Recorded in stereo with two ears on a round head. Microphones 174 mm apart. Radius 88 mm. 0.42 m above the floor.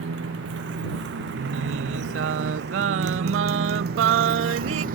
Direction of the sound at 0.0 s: 65° right (ahead or behind).